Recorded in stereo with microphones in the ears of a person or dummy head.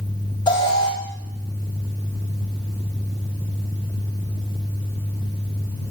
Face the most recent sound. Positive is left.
turn(degrees=20)  # may be behind; listen again after turning